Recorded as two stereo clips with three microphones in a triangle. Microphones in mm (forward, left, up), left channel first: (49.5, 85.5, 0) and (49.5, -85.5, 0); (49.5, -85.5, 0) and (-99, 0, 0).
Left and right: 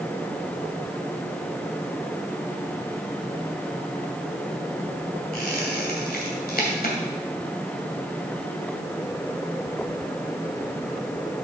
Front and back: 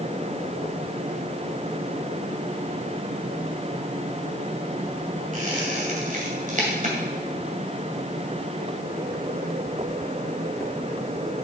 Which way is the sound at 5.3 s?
115° left.